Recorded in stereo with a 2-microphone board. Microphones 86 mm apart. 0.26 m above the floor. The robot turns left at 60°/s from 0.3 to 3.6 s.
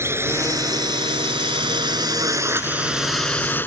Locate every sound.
0.0 s a drone: 30° right (ahead or behind); by 3.7 s 20° left (ahead or behind)